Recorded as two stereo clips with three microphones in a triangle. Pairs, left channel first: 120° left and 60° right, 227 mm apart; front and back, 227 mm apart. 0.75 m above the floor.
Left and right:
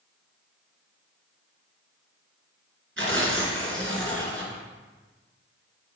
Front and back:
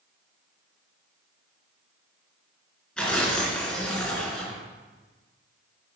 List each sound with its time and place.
3.0 s tearing paper: 85° right, 1.9 m